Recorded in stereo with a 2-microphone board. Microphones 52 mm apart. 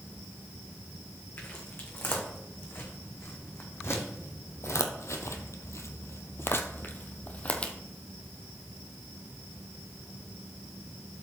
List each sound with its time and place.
1.4 s footsteps: 40° left (ahead or behind), 3 m; by 7.7 s 25° left (ahead or behind), 1.3 m